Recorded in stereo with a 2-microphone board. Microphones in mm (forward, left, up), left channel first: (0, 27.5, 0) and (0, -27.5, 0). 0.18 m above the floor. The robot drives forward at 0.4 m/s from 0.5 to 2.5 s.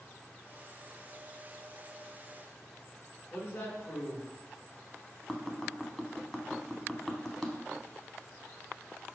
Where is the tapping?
10° left (ahead or behind), 0.6 m.